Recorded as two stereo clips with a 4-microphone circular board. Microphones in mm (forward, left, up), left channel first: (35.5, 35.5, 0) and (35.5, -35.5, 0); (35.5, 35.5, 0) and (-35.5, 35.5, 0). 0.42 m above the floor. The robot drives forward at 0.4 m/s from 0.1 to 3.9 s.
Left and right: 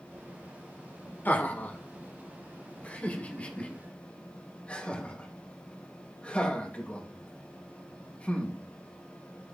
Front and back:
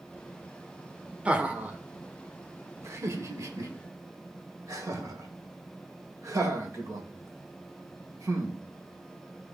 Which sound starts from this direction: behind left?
Laughter, at 1.2 s.